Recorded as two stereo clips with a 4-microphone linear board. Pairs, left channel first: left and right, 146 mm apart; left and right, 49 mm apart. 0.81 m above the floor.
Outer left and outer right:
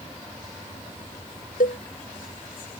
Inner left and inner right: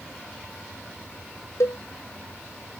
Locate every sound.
1.6 s a cowbell: 75° left (ahead or behind)